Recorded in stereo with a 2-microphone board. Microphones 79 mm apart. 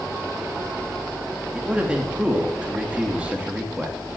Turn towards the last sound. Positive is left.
turn(degrees=-15)  # may be behind; listen again after turning